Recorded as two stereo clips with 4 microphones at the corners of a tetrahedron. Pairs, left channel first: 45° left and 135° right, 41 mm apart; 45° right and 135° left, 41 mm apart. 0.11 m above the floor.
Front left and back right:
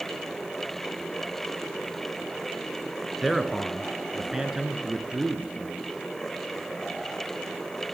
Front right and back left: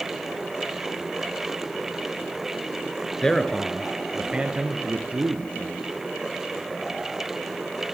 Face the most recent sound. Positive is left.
turn(degrees=160)